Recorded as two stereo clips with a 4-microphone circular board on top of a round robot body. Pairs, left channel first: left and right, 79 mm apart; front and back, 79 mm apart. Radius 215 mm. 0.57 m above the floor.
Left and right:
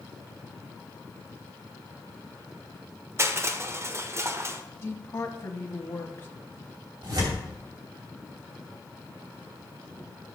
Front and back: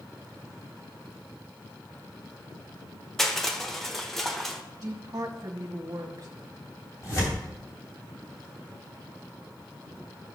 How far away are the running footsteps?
No running footsteps in this recording.